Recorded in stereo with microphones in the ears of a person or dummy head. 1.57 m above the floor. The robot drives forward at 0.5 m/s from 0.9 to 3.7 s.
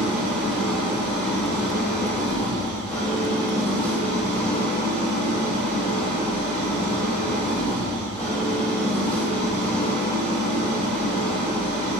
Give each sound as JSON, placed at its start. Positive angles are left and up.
{"t": 0.0, "sound": "an engine running", "side_deg": -5, "distance_m": 1.1}